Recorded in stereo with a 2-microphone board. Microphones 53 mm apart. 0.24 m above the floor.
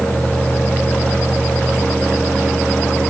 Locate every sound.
Only background noise.